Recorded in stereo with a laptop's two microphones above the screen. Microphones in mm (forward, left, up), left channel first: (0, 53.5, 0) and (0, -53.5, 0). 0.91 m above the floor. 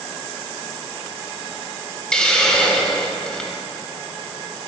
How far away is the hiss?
About 0.8 m.